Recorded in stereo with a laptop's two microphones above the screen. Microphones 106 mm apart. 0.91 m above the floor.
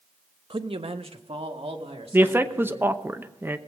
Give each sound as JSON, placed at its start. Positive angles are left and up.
{"t": 0.5, "sound": "a man speaking", "side_deg": -55, "distance_m": 0.7}
{"t": 2.1, "sound": "a man speaking", "side_deg": -20, "distance_m": 0.8}